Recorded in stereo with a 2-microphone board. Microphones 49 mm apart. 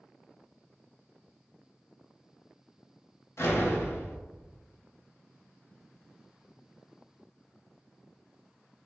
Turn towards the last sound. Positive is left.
turn(degrees=55)  # may be behind; listen again after turning